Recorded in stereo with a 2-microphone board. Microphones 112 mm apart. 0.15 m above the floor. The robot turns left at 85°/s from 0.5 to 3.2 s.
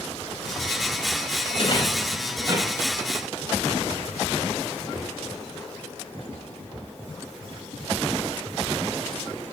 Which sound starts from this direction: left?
A rattle, at 1.5 s.